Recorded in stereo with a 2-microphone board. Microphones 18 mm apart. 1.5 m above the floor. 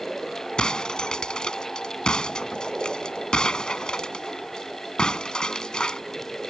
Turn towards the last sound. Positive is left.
turn(degrees=55)  # may be behind; listen again after turning